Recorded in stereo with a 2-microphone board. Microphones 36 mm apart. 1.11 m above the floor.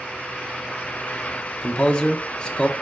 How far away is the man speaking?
About 0.8 m.